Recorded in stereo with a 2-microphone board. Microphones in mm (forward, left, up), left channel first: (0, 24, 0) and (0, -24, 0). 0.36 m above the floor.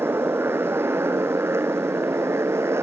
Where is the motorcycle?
55° right (ahead or behind); by 2.8 s 65° right (ahead or behind).